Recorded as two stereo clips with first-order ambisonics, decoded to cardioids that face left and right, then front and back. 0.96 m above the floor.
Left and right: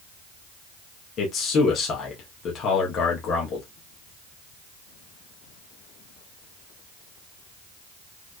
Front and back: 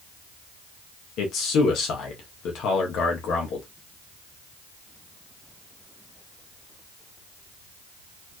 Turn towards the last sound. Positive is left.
turn(degrees=40)